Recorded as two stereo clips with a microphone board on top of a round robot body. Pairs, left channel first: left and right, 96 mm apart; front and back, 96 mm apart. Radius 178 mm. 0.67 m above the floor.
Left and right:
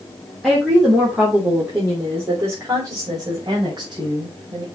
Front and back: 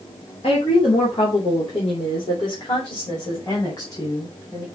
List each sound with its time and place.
0.4 s a woman speaking: straight ahead, 3 m; by 4.7 s 55° right, 4 m